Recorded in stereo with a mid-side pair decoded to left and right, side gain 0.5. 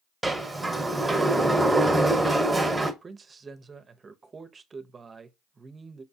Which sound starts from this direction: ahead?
A sliding door, at 0.2 s.